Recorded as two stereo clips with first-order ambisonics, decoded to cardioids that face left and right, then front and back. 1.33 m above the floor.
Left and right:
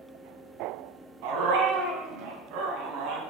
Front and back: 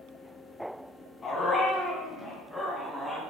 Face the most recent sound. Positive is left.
turn(degrees=-95)